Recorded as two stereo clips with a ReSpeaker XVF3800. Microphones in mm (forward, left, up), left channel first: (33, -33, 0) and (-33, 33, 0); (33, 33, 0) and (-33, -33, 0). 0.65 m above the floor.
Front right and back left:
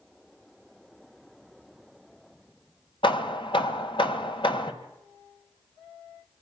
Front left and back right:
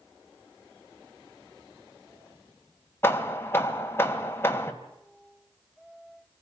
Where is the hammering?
20° right, 2 m.